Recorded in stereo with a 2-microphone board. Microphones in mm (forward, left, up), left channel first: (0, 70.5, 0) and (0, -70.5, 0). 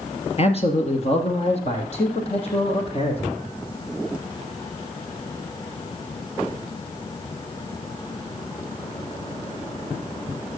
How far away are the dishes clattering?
No dishes clattering in this recording.